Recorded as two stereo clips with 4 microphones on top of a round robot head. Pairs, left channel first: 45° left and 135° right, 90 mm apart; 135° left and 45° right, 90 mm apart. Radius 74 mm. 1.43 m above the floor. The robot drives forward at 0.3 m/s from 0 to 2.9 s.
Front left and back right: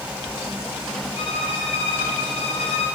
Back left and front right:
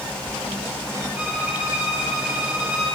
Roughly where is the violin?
Ahead left.